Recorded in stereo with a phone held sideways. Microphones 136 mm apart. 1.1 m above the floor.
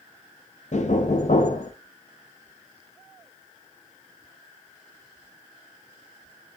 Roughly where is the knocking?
Left.